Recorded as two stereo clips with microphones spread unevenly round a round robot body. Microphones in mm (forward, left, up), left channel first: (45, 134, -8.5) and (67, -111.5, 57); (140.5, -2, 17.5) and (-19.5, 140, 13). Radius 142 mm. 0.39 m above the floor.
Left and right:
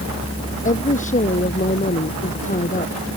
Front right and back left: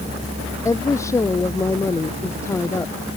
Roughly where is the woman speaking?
Ahead left.